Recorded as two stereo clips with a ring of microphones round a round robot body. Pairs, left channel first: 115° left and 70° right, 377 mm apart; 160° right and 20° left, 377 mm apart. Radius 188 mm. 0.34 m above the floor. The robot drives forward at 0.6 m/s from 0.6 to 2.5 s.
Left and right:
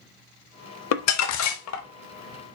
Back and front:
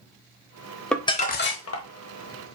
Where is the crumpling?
115° left, 0.6 m; by 1.9 s 160° left, 0.9 m.